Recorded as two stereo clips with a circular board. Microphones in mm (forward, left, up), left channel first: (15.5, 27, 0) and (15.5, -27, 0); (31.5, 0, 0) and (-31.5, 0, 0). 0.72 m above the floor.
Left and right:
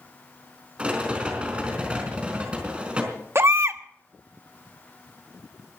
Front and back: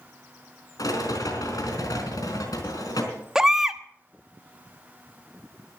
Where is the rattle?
20° right, 4 m.